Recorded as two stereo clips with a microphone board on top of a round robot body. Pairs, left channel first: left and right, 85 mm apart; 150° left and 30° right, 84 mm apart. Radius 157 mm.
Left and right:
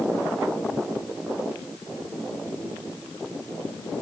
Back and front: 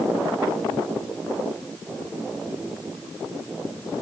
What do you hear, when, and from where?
Only background noise.